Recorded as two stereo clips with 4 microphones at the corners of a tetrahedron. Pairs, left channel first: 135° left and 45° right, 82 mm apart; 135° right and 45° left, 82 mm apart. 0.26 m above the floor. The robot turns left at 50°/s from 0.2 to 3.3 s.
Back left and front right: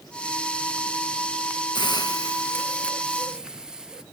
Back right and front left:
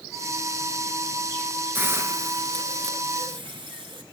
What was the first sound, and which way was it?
A hiss, 115° left.